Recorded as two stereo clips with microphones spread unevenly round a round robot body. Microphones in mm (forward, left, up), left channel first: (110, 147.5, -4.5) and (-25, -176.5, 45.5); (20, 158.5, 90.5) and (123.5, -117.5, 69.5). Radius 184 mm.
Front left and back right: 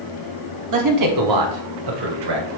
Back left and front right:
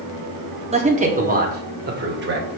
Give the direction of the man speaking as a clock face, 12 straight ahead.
4 o'clock.